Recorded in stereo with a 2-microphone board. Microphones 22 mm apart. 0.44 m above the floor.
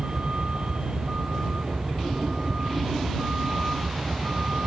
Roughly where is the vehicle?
Right.